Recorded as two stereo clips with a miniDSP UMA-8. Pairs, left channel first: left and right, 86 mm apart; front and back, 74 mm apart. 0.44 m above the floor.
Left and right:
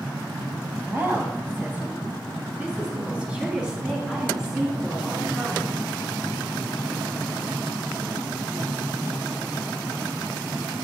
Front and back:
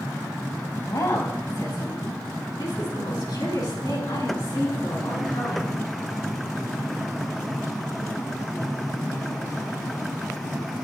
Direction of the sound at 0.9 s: 30° right.